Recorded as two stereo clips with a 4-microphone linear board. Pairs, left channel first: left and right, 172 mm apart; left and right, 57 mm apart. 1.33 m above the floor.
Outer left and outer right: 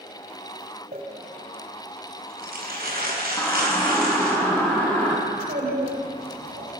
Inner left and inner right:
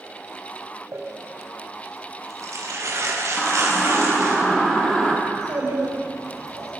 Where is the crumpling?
65° right (ahead or behind), 5 m.